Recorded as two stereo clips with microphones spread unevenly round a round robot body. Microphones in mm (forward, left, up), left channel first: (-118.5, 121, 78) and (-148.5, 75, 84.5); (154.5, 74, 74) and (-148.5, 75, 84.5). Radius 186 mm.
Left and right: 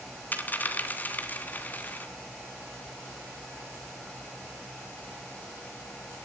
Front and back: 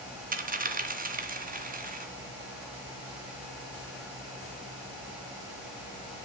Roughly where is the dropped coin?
Behind left.